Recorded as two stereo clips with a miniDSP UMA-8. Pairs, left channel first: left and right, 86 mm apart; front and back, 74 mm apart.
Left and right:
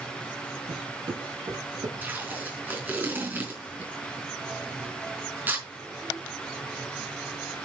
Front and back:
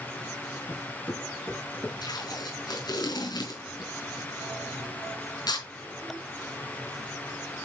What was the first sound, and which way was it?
Footsteps, 60° right.